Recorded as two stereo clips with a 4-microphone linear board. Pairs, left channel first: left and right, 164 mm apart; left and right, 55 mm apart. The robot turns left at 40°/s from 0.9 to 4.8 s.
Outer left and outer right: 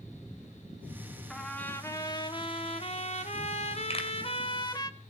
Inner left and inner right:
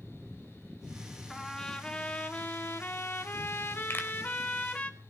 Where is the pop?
40° left (ahead or behind), 2.5 m; by 4.1 s 35° left (ahead or behind), 2.5 m.